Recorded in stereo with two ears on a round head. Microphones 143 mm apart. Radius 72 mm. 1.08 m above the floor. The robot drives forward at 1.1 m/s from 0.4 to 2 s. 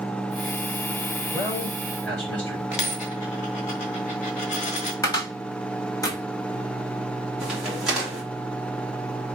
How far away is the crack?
About 2.5 m.